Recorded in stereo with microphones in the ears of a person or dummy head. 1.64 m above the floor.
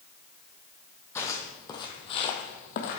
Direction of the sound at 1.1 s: 20° left (ahead or behind).